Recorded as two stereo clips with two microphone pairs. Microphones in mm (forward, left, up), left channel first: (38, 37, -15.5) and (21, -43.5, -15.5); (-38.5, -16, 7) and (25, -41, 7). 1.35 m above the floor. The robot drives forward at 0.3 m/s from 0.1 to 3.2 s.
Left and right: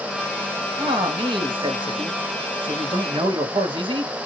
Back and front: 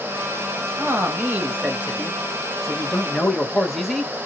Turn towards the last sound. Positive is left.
turn(degrees=-115)